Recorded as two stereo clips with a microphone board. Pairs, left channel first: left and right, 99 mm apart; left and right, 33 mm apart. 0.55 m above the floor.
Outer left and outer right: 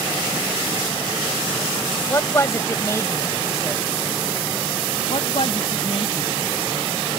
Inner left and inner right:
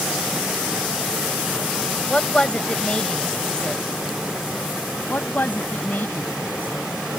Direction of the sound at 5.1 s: 70° left (ahead or behind).